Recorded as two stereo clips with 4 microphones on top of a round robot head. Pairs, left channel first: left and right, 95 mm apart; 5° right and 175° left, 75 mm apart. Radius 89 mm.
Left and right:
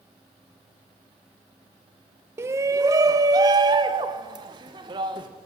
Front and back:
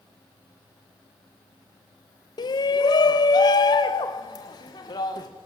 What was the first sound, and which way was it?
A shout, 25° right.